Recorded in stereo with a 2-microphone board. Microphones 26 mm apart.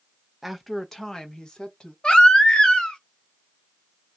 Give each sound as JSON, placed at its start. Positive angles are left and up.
{"t": 0.4, "sound": "a woman speaking", "side_deg": -10, "distance_m": 0.7}
{"t": 2.0, "sound": "a baby crying", "side_deg": 35, "distance_m": 0.9}